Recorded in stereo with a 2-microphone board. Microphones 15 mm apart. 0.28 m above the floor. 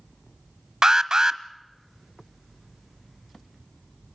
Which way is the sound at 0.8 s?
45° right (ahead or behind).